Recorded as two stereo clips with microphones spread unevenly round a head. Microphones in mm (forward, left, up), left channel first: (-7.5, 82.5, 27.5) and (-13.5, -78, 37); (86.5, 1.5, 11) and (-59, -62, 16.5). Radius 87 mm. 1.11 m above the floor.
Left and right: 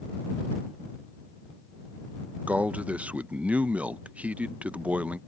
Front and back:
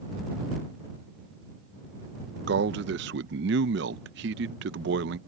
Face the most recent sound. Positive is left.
turn(degrees=-175)